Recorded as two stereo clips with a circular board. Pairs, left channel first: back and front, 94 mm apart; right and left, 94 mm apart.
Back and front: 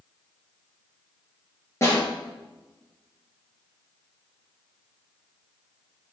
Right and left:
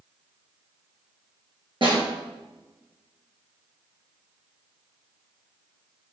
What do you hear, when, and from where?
1.8 s a snare drum: 120° left, 3 m